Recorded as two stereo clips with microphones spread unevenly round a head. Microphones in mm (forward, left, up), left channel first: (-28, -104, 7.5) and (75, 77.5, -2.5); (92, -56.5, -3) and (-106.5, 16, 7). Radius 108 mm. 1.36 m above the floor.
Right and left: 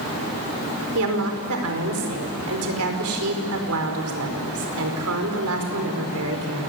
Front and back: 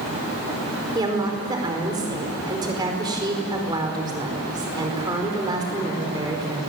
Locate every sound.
0.9 s a woman speaking: 85° left, 4.5 m